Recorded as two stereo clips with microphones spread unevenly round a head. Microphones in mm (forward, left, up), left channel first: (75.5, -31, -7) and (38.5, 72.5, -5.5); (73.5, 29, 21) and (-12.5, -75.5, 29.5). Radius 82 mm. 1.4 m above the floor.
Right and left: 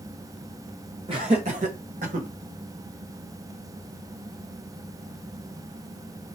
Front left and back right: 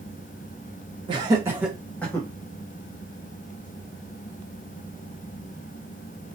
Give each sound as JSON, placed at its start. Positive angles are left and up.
{"t": 1.1, "sound": "laughter", "azimuth_deg": 170, "distance_m": 1.1}